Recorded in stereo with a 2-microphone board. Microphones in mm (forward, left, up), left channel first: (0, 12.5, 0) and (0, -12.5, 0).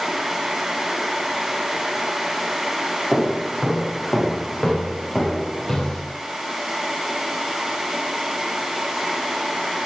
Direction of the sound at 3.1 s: Centre (ahead or behind).